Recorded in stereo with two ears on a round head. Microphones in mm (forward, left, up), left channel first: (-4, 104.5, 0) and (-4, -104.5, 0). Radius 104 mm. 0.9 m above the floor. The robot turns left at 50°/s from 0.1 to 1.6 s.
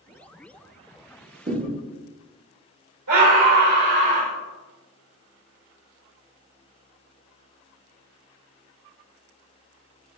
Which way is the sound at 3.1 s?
80° right.